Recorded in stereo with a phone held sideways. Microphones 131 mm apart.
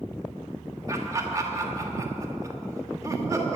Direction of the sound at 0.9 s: 25° right (ahead or behind).